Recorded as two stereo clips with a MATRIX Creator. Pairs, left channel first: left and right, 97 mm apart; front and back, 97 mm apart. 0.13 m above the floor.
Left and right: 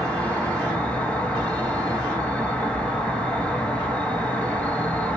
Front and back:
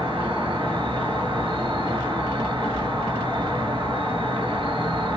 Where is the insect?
160° left, 0.9 m.